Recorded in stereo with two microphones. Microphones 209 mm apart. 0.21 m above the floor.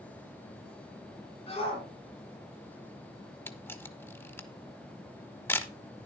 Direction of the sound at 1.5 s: 30° left (ahead or behind).